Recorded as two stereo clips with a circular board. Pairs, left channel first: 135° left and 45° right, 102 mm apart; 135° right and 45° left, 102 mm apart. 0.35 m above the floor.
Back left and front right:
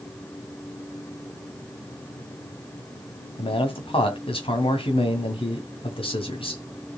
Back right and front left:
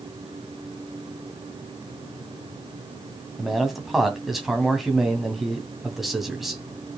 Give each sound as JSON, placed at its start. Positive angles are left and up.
{"t": 3.4, "sound": "a man speaking", "azimuth_deg": 130, "distance_m": 2.5}